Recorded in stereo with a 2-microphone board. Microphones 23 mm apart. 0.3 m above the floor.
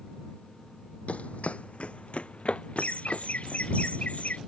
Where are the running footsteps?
70° left (ahead or behind); by 3.6 s 50° left (ahead or behind).